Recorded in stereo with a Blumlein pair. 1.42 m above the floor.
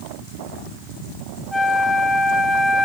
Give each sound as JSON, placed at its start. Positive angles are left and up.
{"t": 1.5, "sound": "a flute", "azimuth_deg": 0, "distance_m": 1.4}